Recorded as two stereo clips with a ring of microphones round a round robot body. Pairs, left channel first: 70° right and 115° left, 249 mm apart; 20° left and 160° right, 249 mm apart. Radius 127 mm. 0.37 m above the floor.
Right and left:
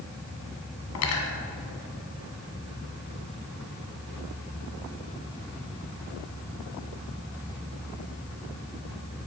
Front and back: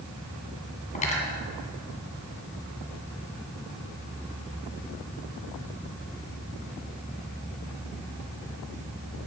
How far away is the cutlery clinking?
About 2 m.